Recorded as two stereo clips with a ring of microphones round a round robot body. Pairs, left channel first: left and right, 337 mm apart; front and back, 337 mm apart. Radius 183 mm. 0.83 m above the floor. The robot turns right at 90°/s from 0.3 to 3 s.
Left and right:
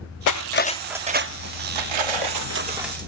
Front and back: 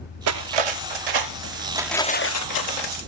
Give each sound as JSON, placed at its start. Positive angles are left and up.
{"t": 0.3, "sound": "cutlery clinking", "azimuth_deg": 125}